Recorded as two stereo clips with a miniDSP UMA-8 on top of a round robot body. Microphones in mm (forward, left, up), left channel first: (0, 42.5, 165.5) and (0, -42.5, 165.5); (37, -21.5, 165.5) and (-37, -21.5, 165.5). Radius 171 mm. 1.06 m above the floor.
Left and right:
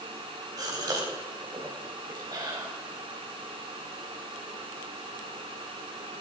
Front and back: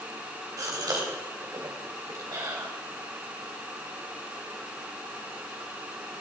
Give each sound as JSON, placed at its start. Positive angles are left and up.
{"t": 0.6, "sound": "a gasp", "azimuth_deg": -135, "distance_m": 3.0}